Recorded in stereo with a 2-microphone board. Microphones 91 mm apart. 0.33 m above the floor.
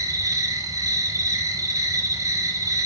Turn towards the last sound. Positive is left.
turn(degrees=-40)  # may be behind; listen again after turning